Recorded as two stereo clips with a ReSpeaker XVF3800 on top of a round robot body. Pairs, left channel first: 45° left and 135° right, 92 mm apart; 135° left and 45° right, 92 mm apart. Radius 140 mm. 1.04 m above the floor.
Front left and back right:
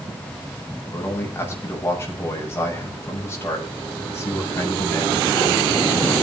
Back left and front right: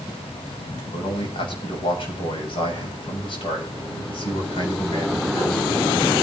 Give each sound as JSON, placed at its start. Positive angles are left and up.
{"t": 0.9, "sound": "a man speaking", "azimuth_deg": 110, "distance_m": 7.5}